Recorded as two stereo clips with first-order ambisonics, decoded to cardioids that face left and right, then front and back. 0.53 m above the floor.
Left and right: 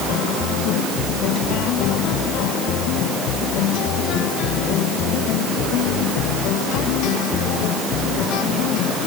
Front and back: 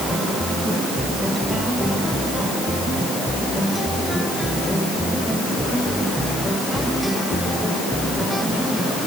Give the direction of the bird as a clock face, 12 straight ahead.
I don't hear a bird.